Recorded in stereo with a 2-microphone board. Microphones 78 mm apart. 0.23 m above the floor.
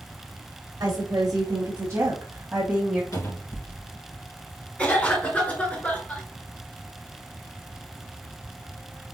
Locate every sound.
0.8 s a woman speaking: 55° right (ahead or behind), 2 m; by 3.0 s 10° right (ahead or behind), 1.5 m
3.1 s a cupboard door: 50° left (ahead or behind), 3 m
4.8 s a cough: 15° left (ahead or behind), 3 m